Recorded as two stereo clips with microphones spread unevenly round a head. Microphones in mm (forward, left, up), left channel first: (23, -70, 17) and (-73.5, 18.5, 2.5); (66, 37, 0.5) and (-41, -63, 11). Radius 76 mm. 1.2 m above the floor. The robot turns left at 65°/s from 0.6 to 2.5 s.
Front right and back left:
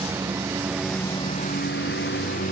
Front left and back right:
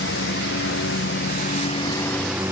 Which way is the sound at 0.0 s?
65° left.